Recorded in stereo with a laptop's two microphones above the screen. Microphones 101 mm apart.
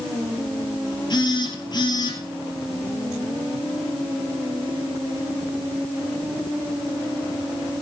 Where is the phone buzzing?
45° left (ahead or behind), 4 m.